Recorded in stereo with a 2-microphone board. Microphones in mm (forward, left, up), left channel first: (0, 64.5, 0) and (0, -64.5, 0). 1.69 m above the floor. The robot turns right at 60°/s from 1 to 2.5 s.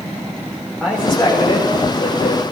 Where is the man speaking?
Centre (ahead or behind), 6.5 m; by 2.4 s 85° left, 6.5 m.